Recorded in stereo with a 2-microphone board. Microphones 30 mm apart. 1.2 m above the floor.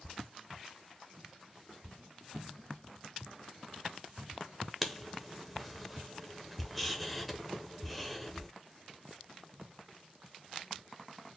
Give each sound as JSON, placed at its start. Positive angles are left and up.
{"t": 4.8, "sound": "writing", "side_deg": 5, "distance_m": 0.7}